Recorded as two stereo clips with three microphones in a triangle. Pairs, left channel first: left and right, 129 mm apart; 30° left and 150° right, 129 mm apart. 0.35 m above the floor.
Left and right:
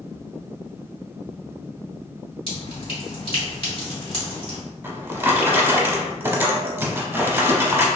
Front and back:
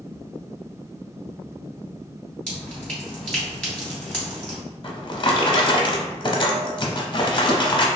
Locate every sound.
2.5 s dripping: 110° left, 2.0 m
4.8 s a drawer: 20° right, 0.5 m